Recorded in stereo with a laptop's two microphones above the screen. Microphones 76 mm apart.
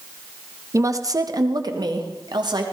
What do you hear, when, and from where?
0.7 s a woman speaking: 40° right (ahead or behind), 1.1 m; by 2.6 s 65° right (ahead or behind), 2.5 m